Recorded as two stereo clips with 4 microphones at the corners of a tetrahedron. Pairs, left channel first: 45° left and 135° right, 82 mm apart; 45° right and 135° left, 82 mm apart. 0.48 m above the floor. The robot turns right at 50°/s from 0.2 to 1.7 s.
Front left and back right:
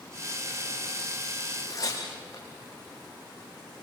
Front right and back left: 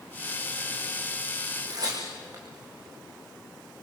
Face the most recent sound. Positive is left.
turn(degrees=95)